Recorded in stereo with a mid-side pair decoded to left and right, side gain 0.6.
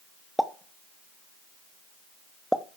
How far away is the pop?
About 0.9 m.